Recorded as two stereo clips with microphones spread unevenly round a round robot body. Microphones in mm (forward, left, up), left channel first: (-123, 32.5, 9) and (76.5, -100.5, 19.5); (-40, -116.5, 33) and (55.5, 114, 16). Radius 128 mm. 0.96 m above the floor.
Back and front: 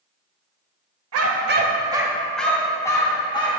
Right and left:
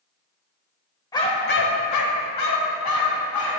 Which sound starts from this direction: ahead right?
A dog barking, at 1.1 s.